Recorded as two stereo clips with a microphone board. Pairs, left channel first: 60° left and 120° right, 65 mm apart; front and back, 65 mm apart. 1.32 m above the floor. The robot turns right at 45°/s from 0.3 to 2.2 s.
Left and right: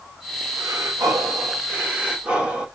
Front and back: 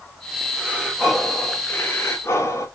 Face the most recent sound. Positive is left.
turn(degrees=-50)